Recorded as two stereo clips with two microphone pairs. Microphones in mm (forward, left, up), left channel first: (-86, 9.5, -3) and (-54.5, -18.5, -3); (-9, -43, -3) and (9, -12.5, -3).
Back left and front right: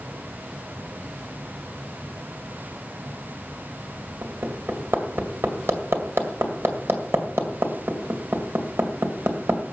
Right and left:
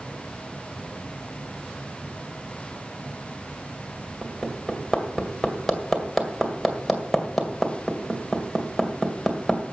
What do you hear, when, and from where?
4.2 s hammering: 30° right, 2 m